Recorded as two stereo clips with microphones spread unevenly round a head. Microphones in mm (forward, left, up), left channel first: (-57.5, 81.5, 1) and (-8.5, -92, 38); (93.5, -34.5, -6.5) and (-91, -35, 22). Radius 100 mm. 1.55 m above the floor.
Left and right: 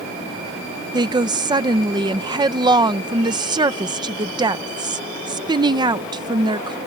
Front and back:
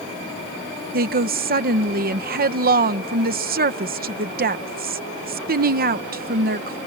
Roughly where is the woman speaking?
Behind right.